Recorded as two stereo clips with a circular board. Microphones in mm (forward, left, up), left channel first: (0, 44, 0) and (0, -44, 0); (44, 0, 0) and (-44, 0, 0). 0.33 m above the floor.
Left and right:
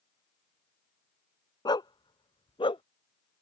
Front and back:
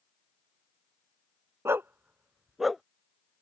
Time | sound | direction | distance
1.6 | a dog barking | 120° left | ?